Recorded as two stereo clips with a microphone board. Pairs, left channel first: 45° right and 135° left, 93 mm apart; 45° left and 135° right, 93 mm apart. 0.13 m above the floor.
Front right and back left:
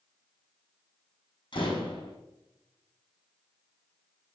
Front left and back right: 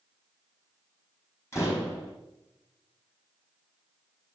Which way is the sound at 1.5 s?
15° right.